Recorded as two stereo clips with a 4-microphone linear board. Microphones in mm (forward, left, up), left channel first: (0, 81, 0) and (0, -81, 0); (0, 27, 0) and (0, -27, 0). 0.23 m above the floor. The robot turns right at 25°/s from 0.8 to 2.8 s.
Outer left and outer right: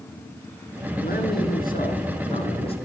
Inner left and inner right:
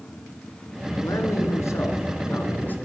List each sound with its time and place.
1.0 s a man speaking: 100° left, 2.5 m; by 2.8 s 145° left, 2.5 m